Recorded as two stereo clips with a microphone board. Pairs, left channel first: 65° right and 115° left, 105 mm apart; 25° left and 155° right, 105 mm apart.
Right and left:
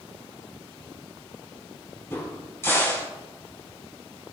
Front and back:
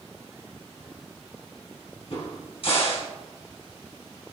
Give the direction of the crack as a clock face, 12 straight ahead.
12 o'clock.